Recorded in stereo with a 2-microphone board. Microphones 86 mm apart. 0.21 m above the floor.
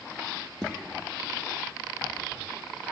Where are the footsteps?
10° left (ahead or behind), 1.7 m.